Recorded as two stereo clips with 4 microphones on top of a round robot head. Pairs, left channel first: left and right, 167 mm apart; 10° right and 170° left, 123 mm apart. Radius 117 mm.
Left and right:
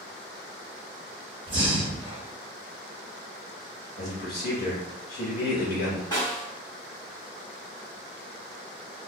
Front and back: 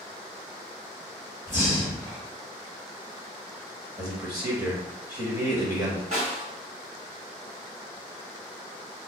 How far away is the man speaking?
About 1.6 m.